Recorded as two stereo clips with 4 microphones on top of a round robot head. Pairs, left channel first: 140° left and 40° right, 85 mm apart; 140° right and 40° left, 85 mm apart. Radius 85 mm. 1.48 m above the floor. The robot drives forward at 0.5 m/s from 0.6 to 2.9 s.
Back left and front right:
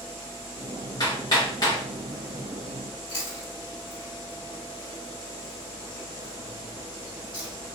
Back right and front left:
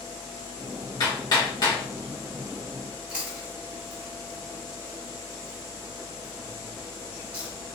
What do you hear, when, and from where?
1.0 s hammering: straight behind, 1.8 m
3.1 s chewing: 115° left, 2 m